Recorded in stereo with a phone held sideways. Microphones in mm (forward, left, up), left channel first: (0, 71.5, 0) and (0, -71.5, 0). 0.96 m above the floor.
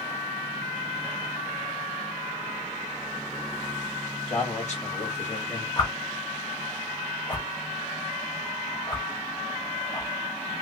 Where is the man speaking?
50° left (ahead or behind), 1.8 m.